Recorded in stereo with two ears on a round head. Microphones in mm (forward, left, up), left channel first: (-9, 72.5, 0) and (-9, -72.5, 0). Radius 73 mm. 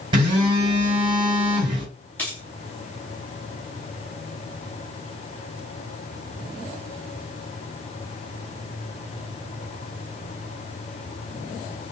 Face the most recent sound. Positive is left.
turn(degrees=10)  # may be behind; listen again after turning